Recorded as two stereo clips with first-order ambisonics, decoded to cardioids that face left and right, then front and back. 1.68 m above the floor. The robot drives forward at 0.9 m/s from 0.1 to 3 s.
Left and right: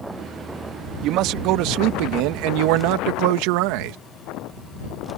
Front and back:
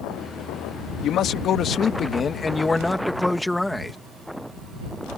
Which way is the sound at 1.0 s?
50° right.